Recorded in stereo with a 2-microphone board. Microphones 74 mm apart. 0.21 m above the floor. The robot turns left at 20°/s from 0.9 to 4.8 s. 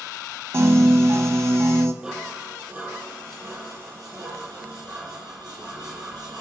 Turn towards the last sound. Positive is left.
turn(degrees=-65)